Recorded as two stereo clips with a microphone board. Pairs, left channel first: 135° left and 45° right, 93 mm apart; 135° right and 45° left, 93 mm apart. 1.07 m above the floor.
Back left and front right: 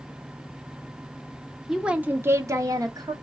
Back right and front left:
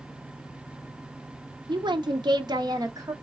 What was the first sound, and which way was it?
A woman speaking, 40° left.